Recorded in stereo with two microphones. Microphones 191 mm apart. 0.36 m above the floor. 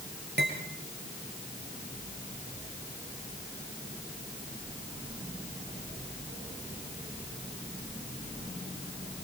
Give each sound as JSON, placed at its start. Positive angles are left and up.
{"t": 0.4, "sound": "cutlery clinking", "side_deg": -60, "distance_m": 5.5}